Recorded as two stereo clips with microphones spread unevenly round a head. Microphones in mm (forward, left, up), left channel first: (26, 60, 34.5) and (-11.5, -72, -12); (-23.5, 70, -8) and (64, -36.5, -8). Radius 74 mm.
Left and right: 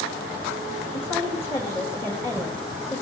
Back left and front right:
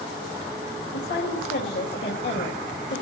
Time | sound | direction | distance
0.9 | a woman speaking | 150° left | 3 m